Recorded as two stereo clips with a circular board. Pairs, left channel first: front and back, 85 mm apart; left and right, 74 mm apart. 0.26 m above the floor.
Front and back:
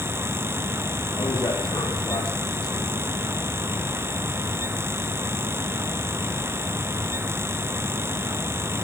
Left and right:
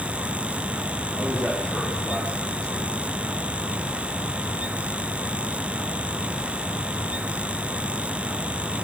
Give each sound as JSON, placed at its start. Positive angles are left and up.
{"t": 1.1, "sound": "a man speaking", "azimuth_deg": 10, "distance_m": 9.0}